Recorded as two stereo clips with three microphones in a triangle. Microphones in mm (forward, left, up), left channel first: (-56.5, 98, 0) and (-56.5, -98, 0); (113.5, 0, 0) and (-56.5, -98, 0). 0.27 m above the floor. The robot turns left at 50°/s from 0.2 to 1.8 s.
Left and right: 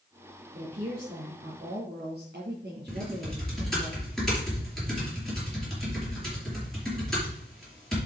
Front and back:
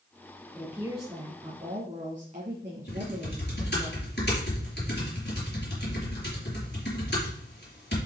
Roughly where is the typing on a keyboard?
Ahead.